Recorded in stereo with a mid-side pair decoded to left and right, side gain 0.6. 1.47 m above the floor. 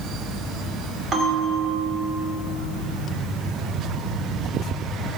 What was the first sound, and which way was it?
A bell, 40° right.